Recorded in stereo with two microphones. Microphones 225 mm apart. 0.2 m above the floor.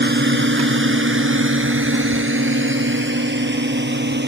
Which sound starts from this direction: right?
A drone, at 0.0 s.